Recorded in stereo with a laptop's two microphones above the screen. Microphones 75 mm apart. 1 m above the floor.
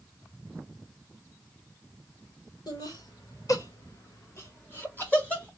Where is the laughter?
60° left (ahead or behind), 2 m; by 5.5 s 15° left (ahead or behind), 1.4 m.